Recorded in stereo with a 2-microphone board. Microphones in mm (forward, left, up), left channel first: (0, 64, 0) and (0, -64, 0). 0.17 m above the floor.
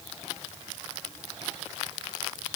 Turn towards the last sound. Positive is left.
No sound to turn to.